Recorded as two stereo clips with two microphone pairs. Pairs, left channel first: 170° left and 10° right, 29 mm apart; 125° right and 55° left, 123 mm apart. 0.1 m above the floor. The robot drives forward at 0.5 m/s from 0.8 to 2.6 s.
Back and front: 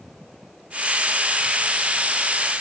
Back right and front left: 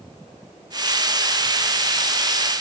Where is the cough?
No cough in this recording.